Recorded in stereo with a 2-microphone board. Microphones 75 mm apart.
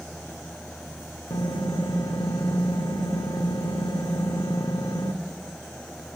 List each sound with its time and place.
1.3 s typing on a keyboard: 75° left (ahead or behind), 1.4 m